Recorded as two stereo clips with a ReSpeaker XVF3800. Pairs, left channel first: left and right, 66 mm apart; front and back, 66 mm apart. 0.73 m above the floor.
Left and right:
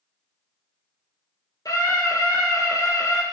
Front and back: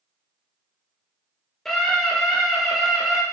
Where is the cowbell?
No cowbell in this recording.